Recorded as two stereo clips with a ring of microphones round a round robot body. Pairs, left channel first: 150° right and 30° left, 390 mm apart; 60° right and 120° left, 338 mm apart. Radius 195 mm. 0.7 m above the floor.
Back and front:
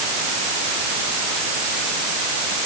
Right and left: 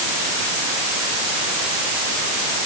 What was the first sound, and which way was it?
Only background noise.